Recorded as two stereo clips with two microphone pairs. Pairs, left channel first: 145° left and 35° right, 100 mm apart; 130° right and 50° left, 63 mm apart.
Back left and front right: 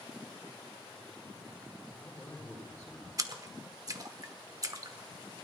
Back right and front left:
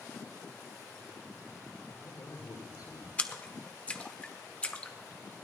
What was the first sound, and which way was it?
A man speaking, 140° right.